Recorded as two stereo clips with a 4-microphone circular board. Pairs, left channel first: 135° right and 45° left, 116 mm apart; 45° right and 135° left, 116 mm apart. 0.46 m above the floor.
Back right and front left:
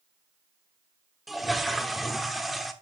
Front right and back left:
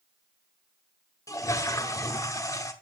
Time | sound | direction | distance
1.3 | a toilet flushing | 45° right | 0.8 m